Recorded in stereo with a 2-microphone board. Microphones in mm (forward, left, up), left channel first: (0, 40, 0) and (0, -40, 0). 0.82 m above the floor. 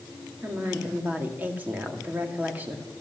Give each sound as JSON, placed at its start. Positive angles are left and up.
{"t": 0.4, "sound": "a woman speaking", "side_deg": -20, "distance_m": 2.0}